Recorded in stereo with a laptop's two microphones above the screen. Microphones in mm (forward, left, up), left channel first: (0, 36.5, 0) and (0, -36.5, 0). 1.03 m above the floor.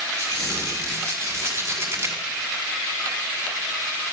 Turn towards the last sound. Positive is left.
turn(degrees=-35)  # may be behind; listen again after turning